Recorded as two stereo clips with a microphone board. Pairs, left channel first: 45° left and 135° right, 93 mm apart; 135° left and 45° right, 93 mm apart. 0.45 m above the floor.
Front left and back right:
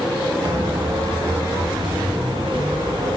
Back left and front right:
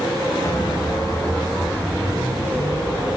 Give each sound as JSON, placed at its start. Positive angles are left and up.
{"t": 0.4, "sound": "footsteps", "azimuth_deg": -170, "distance_m": 1.8}